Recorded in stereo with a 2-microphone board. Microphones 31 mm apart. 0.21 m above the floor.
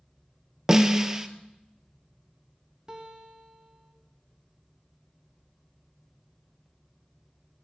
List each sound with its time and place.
0.7 s a snare drum: 15° right (ahead or behind), 0.9 m
2.9 s a guitar: 25° right (ahead or behind), 1.8 m